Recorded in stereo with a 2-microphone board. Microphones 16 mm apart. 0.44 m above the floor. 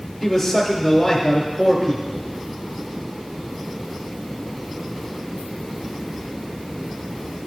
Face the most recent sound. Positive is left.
turn(degrees=15)  # may be behind; listen again after turning